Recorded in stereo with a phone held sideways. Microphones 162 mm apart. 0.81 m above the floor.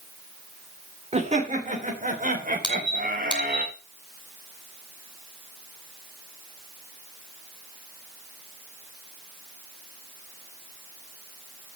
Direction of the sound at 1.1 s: 40° right (ahead or behind).